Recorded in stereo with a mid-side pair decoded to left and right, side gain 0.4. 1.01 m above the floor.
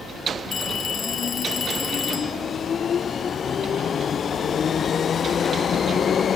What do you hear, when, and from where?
0.5 s a phone ringing: 50° left